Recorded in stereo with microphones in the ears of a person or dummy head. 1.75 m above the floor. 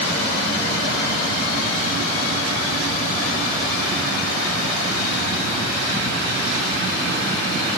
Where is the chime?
No chime in this recording.